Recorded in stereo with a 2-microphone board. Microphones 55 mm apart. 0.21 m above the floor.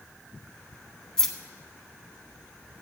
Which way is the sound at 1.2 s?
10° left (ahead or behind).